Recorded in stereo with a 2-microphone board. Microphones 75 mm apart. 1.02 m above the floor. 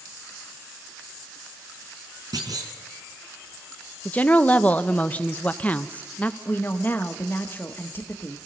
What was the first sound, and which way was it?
A clunk, 65° right (ahead or behind).